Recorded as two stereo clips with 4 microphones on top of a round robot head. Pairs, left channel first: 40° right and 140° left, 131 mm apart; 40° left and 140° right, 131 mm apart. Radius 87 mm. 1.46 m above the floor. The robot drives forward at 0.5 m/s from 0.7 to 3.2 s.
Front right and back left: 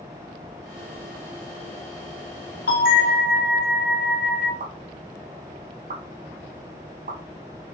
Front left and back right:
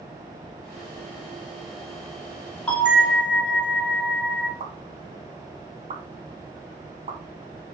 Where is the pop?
175° left, 1.7 m.